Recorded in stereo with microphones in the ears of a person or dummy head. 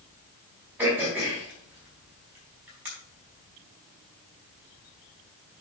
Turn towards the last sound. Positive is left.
turn(degrees=-5)  # may be behind; listen again after turning